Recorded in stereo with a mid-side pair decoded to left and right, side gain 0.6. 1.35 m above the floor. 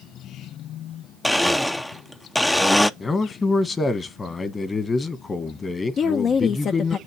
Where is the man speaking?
25° left, 1.5 m.